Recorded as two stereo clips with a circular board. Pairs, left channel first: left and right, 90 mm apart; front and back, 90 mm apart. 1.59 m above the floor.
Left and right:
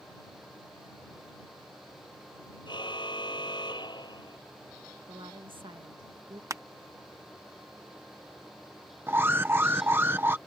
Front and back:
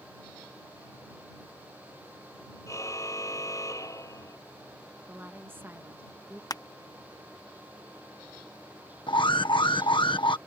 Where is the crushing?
40° right.